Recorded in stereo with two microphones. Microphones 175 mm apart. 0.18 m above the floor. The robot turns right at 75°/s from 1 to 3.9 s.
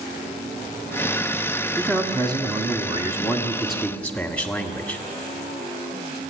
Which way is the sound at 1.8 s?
15° right (ahead or behind).